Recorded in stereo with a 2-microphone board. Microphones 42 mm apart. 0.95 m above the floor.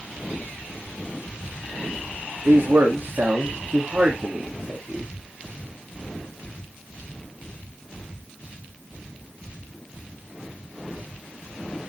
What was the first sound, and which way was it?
A man speaking, 70° right (ahead or behind).